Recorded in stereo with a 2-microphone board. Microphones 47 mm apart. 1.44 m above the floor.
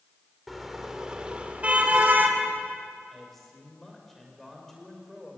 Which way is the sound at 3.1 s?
Centre (ahead or behind).